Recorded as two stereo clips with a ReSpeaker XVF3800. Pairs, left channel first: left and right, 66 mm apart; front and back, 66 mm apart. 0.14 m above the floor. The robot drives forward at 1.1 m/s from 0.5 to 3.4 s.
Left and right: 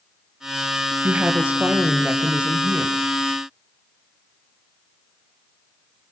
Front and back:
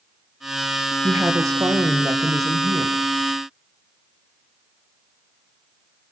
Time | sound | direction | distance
1.0 | a woman speaking | 140° right | 2 m